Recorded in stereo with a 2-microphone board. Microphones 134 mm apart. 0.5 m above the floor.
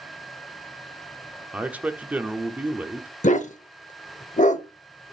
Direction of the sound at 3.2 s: 65° left (ahead or behind).